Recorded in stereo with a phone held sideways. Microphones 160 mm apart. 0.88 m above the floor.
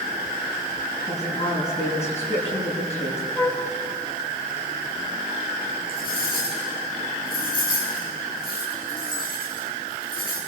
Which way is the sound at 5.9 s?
65° left (ahead or behind).